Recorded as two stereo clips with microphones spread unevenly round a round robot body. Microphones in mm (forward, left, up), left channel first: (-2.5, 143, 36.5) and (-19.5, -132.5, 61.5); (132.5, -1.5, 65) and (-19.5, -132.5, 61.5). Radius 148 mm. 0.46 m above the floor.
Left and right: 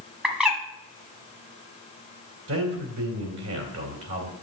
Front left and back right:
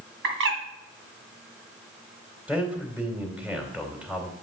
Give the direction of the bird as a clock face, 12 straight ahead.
6 o'clock.